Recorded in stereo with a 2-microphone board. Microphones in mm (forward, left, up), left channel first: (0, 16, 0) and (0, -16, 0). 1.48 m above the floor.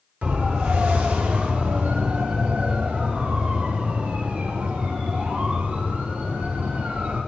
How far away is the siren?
About 5 m.